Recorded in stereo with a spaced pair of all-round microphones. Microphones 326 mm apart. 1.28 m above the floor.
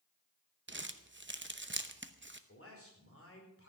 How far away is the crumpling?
About 0.8 m.